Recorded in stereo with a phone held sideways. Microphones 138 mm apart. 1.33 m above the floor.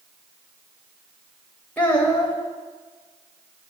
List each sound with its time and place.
1.8 s a child speaking: 10° left (ahead or behind), 0.8 m